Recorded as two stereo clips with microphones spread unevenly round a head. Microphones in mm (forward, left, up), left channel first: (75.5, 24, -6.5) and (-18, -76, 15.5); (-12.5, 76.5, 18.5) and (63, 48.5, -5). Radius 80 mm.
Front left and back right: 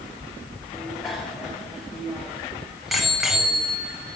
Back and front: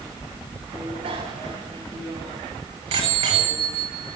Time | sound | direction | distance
0.7 | a bicycle bell | 45° right | 8.5 m